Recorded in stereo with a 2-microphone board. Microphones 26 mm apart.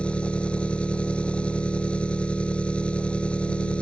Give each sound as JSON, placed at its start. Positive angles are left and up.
{"t": 0.0, "sound": "an engine running", "side_deg": 50}